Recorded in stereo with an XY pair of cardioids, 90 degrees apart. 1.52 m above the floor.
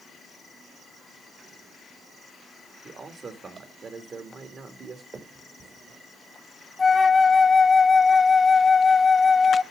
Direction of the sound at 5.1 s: 45° right.